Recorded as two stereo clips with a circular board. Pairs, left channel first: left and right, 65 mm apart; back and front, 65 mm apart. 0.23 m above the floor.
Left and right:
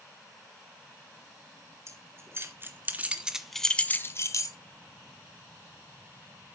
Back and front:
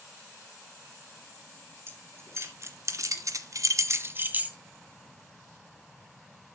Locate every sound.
1.9 s keys jangling: 50° right, 3 m; by 4.6 s 70° left, 1.7 m